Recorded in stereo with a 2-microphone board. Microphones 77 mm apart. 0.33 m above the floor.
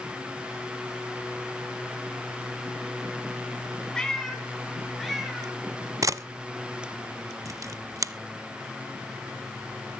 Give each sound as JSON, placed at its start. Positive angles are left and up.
{"t": 3.9, "sound": "a cat meowing", "side_deg": 10, "distance_m": 1.7}
{"t": 6.0, "sound": "a camera shutter", "side_deg": -45, "distance_m": 0.5}